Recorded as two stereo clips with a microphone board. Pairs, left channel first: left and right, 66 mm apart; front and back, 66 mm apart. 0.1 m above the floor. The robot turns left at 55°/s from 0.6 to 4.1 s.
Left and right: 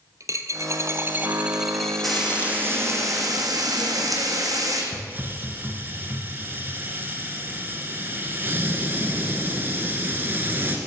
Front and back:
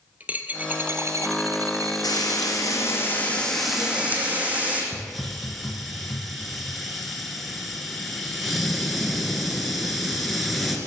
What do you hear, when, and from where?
0.2 s a dropped coin: 115° right, 0.8 m; by 2.5 s 140° left, 0.8 m
2.0 s frying: straight ahead, 2 m; by 4.8 s 115° right, 2 m
4.9 s a hiss: 90° right, 1.5 m